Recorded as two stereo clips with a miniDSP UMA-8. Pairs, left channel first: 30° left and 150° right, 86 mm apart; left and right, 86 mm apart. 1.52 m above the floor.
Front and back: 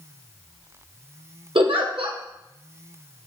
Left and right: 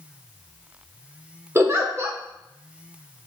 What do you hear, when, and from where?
1.6 s a giggle: 150° right, 1.3 m